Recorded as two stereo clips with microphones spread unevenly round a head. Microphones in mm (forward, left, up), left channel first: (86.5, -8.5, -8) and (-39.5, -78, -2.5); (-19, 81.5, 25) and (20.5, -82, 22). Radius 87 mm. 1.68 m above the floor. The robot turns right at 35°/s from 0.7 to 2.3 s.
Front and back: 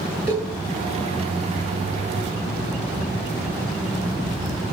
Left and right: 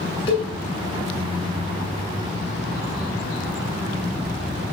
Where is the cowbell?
90° left, 7 m.